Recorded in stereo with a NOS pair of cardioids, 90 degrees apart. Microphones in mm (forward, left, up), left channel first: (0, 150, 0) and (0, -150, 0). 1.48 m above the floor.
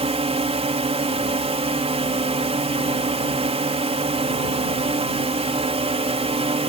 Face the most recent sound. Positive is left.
turn(degrees=-20)